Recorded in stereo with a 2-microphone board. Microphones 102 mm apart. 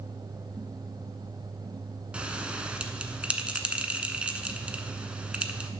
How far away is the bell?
About 0.7 m.